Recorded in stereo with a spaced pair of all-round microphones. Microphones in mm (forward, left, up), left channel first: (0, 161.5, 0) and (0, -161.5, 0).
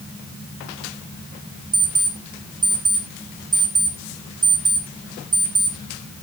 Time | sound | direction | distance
1.7 | an alarm clock | centre (ahead or behind) | 4 m